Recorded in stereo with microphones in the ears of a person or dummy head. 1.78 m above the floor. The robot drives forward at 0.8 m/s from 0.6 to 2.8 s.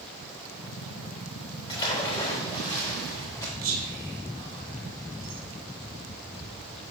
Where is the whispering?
45° right (ahead or behind), 2.5 m.